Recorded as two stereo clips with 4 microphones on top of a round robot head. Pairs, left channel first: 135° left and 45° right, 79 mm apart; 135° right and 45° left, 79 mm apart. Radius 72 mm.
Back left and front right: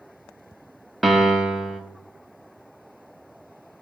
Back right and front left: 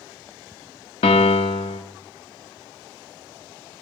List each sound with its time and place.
1.0 s a piano: 130° right, 0.8 m